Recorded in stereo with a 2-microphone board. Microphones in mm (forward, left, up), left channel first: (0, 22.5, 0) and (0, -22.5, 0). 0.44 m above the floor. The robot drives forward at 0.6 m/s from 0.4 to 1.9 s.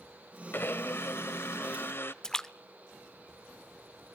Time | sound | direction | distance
0.5 | a blender | 55° left (ahead or behind) | 1.1 m
2.2 | a splash | 15° left (ahead or behind) | 0.8 m